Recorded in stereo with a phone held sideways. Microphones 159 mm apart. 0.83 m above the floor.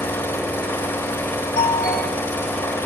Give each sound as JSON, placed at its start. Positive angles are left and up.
{"t": 0.0, "sound": "an engine running", "side_deg": 15, "distance_m": 1.0}
{"t": 1.6, "sound": "a doorbell", "side_deg": 75, "distance_m": 3.5}